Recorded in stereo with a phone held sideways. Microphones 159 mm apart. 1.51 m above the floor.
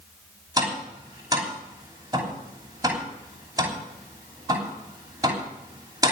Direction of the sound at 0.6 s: 20° right (ahead or behind).